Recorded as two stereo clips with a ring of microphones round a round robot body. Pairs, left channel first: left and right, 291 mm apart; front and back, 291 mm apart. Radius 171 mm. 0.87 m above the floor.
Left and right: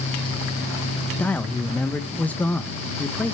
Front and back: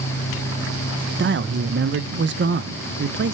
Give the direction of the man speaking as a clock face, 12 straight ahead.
6 o'clock.